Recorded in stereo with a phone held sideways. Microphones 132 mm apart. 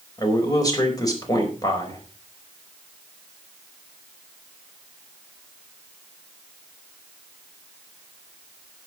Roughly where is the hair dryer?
I don't hear a hair dryer.